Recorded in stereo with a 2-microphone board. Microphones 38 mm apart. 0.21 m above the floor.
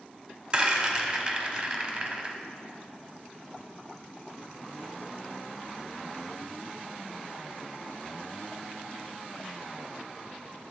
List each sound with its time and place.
0.5 s a rattle: 25° right (ahead or behind), 1.4 m